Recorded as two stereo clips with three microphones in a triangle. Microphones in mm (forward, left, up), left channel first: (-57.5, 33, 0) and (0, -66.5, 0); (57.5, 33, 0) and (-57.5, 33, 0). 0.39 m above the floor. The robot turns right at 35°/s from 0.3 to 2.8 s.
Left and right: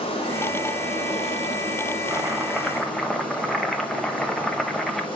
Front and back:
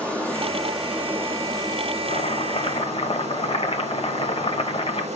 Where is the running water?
80° left, 2.5 m; by 5.2 s 165° left, 2.5 m.